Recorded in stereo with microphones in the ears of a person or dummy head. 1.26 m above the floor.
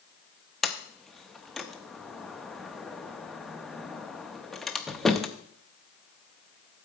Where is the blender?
No blender in this recording.